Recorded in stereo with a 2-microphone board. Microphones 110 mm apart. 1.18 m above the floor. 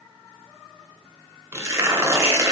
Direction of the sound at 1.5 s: 25° right (ahead or behind).